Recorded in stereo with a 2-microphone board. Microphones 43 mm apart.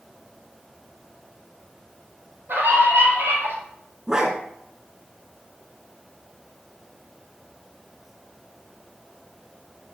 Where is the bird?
No bird in this recording.